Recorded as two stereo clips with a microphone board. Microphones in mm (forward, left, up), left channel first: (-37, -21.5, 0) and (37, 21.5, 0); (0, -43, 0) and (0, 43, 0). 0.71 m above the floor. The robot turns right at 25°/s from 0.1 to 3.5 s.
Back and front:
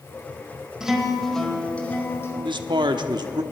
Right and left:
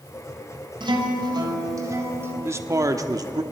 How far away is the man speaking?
About 1.0 m.